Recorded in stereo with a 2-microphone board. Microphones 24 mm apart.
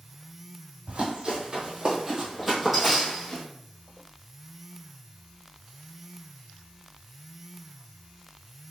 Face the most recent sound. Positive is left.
turn(degrees=15)  # may be behind; listen again after turning